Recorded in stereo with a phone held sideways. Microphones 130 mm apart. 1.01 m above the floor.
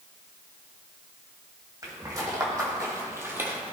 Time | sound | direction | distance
1.8 | footsteps | 30° right (ahead or behind) | 2.5 m